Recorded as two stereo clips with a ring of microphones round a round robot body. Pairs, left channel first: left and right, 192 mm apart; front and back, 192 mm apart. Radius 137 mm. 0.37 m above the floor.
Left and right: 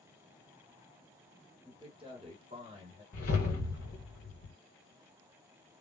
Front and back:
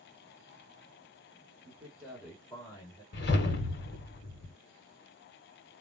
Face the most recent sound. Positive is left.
turn(degrees=30)